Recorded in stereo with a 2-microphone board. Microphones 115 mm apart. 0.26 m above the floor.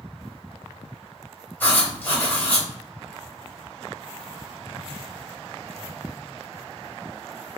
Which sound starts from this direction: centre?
Writing, at 1.6 s.